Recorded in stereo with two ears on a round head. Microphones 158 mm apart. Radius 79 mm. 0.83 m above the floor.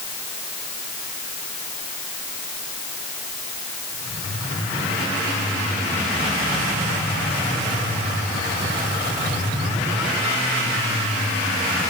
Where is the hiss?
I don't hear a hiss.